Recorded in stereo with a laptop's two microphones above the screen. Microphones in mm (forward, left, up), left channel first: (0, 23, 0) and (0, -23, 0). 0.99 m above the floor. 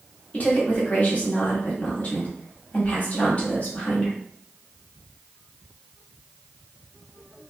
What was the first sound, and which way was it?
A woman speaking, 35° left (ahead or behind).